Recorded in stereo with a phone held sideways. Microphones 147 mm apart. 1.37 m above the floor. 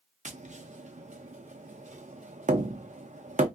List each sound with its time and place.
0.2 s tapping: 55° right (ahead or behind), 0.5 m